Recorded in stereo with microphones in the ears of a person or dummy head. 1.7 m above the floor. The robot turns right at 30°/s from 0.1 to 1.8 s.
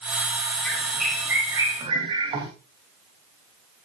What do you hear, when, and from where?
0.7 s a bird: 170° left, 3 m; by 2.5 s 155° right, 3 m